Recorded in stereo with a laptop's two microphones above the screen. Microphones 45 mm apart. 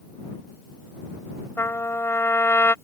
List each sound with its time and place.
1.6 s a trumpet: 65° left (ahead or behind)